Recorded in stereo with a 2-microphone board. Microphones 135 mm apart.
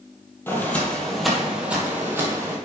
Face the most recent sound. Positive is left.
turn(degrees=-25)  # may be behind; listen again after turning